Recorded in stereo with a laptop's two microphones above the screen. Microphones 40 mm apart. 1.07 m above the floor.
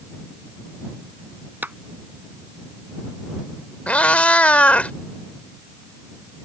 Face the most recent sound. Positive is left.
turn(degrees=35)  # may be behind; listen again after turning